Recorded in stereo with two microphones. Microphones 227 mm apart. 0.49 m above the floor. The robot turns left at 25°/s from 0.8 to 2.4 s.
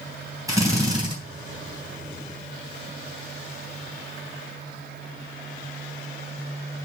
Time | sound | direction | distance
0.5 | a drill | 15° right (ahead or behind) | 2.5 m